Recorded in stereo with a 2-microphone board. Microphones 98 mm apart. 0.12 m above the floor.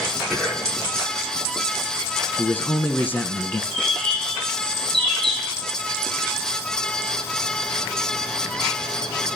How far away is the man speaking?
About 1.1 m.